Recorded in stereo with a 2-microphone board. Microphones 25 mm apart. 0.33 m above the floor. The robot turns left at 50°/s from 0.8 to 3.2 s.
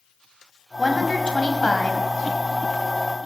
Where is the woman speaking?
160° left, 2 m; by 2.0 s 100° left, 2 m.